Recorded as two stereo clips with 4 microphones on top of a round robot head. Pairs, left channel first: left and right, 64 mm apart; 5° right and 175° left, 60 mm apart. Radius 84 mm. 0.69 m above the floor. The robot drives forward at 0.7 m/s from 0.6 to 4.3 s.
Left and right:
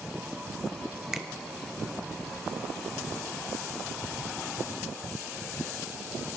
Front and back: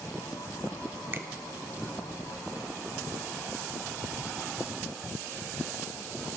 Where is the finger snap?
170° right, 0.8 m.